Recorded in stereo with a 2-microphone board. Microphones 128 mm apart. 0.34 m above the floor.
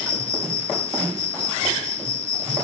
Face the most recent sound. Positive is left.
turn(degrees=-70)  # may be behind; listen again after turning